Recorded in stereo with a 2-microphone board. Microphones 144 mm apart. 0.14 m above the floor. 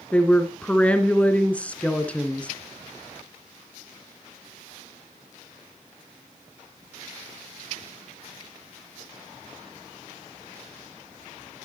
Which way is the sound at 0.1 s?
10° left (ahead or behind).